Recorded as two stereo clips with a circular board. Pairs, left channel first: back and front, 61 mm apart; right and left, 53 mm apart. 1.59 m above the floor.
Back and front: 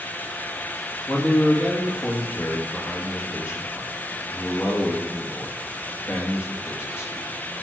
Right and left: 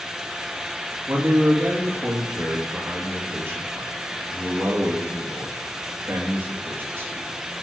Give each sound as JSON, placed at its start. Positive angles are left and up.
{"t": 1.1, "sound": "a man speaking", "azimuth_deg": 135, "distance_m": 2.5}